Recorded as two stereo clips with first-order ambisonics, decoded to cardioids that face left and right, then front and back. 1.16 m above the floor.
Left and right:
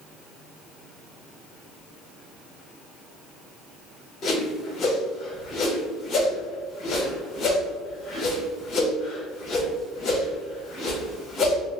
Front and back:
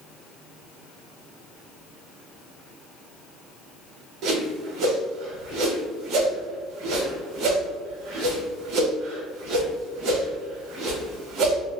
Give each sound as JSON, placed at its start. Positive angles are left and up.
{"t": 4.2, "sound": "a whoosh", "azimuth_deg": 145, "distance_m": 0.8}